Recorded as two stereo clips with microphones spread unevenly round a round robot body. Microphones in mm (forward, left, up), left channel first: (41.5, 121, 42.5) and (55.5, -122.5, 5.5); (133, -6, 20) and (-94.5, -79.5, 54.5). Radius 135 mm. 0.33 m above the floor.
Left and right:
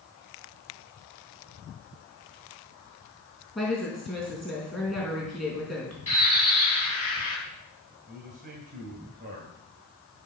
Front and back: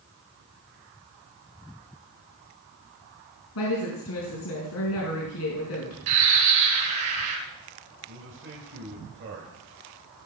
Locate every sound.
3.5 s a woman speaking: 5° left, 4.5 m
6.1 s a bird: 165° left, 4.5 m
8.1 s a man speaking: 135° right, 2.5 m